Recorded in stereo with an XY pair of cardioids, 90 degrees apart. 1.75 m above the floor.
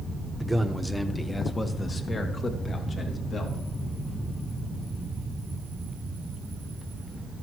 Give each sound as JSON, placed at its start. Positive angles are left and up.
{"t": 0.4, "sound": "a man speaking", "azimuth_deg": -10, "distance_m": 1.3}